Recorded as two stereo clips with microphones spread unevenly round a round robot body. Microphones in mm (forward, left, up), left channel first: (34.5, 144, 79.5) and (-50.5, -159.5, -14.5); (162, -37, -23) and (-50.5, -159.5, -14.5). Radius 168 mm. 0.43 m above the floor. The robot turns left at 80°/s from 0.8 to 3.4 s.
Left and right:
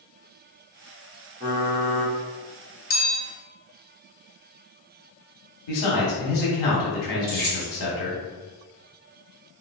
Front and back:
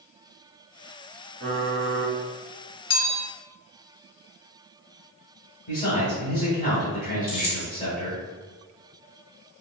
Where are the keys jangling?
20° right, 1.9 m.